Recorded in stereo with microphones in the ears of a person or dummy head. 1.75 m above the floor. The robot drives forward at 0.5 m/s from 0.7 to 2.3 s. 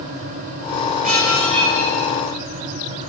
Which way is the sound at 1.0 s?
40° right (ahead or behind).